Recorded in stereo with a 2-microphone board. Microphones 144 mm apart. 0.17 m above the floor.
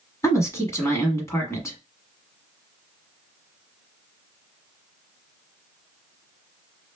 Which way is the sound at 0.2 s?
20° left (ahead or behind).